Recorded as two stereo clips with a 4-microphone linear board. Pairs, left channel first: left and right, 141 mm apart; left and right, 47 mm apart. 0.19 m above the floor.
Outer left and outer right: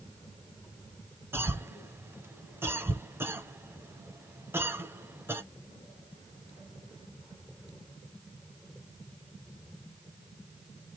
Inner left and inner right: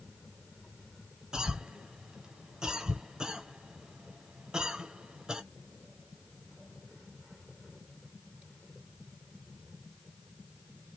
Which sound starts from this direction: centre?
A cough, at 1.3 s.